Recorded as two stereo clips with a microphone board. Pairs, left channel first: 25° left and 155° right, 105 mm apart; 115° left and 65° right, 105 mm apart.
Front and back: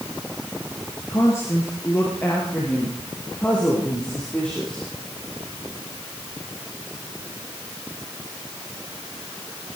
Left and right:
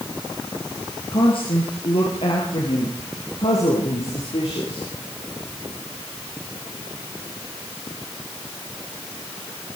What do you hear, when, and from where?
1.1 s a woman speaking: 80° left, 3.5 m; by 4.9 s 105° left, 6 m